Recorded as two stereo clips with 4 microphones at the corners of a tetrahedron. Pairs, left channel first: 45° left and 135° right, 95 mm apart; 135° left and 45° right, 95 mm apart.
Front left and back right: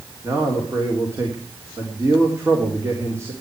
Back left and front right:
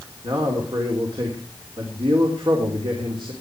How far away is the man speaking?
About 3.5 m.